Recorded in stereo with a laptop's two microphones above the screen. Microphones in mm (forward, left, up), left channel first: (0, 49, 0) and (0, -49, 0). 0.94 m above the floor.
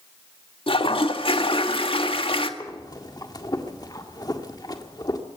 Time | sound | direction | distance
0.7 | a toilet flushing | 65° left (ahead or behind) | 1.8 m
2.6 | breathing | 40° left (ahead or behind) | 1.8 m